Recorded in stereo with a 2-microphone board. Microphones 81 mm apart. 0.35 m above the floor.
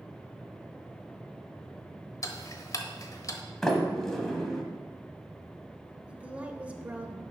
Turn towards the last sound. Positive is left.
turn(degrees=-15)  # may be behind; listen again after turning